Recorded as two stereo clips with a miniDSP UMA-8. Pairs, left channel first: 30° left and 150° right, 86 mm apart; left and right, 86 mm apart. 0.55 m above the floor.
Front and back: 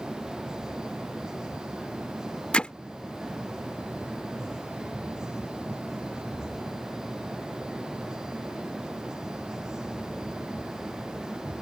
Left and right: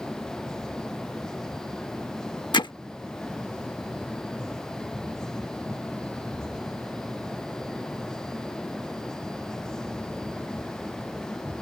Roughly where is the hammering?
Left.